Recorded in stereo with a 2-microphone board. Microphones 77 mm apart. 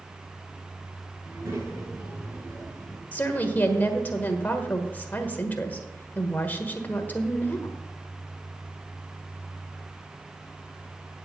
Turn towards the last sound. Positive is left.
turn(degrees=25)  # may be behind; listen again after turning